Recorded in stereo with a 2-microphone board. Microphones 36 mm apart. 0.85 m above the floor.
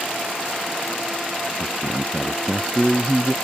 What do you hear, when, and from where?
1.6 s a man speaking: 5° left (ahead or behind)